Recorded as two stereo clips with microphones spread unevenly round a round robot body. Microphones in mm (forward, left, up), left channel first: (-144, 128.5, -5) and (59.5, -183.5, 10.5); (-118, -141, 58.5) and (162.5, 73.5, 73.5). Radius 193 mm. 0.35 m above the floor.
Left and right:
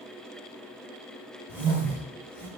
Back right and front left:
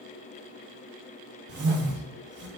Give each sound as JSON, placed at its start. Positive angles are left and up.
{"t": 1.5, "sound": "a whoosh", "azimuth_deg": 30, "distance_m": 0.8}